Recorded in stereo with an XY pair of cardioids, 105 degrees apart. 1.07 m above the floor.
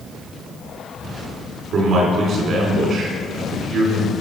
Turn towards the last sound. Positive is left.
turn(degrees=-65)